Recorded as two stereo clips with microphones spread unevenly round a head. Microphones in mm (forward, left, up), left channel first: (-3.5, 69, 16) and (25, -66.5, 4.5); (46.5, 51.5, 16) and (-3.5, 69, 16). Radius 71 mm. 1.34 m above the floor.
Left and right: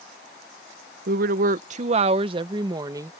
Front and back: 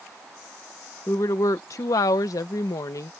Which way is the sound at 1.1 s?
75° right.